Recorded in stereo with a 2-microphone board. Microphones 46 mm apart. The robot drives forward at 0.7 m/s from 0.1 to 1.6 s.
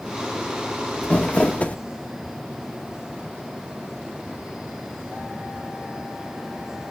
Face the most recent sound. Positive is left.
turn(degrees=30)  # may be behind; listen again after turning